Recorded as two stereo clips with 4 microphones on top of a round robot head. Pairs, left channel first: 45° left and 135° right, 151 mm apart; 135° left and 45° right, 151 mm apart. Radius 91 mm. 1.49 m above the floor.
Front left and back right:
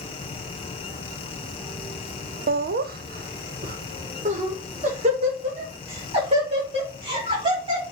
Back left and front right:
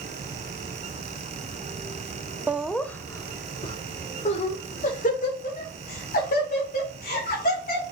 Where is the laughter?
120° right, 0.6 m; by 7.9 s 165° left, 3 m.